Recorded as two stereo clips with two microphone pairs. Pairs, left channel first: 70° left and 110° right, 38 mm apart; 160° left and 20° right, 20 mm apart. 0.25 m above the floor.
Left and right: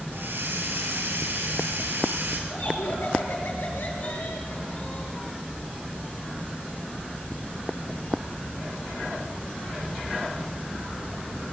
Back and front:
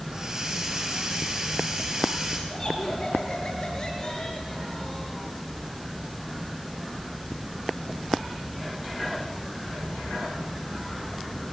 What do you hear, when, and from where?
0.1 s a hiss: 85° right, 3 m
2.5 s laughter: 100° left, 6 m